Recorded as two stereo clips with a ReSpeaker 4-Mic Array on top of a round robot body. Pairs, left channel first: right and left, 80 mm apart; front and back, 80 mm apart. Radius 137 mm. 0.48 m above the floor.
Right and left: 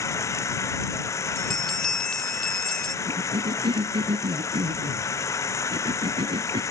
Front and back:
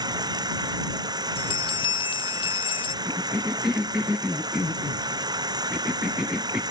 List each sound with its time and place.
0.0 s running water: 145° right
1.4 s a bell: 10° right
3.0 s a cough: 100° left